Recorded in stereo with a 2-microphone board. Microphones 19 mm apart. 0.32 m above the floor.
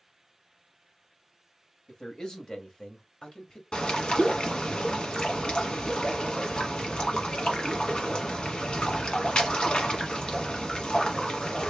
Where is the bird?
55° left (ahead or behind), 1.3 m.